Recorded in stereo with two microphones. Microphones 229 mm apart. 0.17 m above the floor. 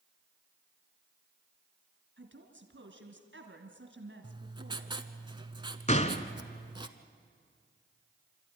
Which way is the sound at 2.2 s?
55° right (ahead or behind).